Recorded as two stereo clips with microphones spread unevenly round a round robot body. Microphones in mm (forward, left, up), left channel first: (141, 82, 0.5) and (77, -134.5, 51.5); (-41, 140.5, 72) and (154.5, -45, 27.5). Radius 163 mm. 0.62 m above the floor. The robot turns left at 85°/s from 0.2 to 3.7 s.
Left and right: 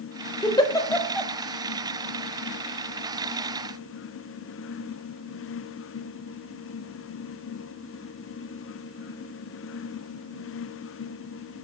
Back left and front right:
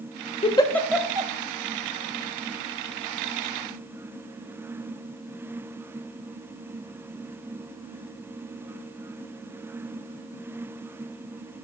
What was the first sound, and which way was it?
A giggle, 70° left.